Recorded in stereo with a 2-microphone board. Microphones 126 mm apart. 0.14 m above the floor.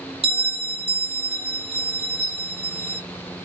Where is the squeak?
45° right (ahead or behind), 1.9 m.